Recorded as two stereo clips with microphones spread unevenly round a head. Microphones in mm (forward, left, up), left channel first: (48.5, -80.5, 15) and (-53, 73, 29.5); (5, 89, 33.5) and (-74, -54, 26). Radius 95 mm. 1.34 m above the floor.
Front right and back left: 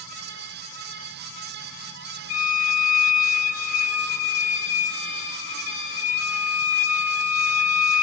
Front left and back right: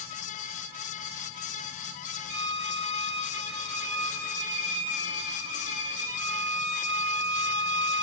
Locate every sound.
2.3 s a violin: 20° right, 3 m